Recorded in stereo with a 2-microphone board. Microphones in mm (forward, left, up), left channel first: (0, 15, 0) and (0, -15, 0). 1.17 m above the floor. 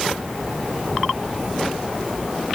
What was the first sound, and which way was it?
Only background noise.